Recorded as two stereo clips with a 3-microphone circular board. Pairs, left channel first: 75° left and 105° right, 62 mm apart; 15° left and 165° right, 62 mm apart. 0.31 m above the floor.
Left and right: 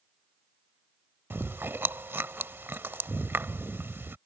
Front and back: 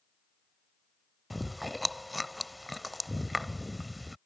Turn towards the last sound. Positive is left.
turn(degrees=-75)